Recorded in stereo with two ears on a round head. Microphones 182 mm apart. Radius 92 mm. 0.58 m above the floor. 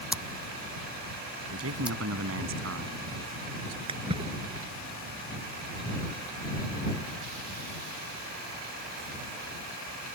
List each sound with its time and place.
0.1 s scissors: 5° right (ahead or behind)
1.5 s a man speaking: 75° right (ahead or behind)
3.9 s a splash: 25° right (ahead or behind)